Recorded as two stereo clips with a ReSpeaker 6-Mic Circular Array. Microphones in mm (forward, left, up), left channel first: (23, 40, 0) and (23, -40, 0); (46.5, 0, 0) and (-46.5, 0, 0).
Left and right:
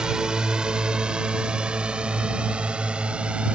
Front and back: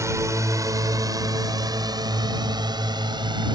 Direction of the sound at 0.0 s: 160° right.